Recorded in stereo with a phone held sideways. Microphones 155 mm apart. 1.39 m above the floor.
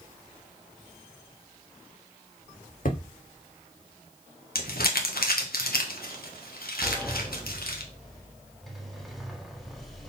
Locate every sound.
2.9 s hammering: 60° left (ahead or behind), 1.3 m
4.5 s crumpling: 75° left (ahead or behind), 1.3 m
6.8 s a sliding door: centre (ahead or behind), 1.2 m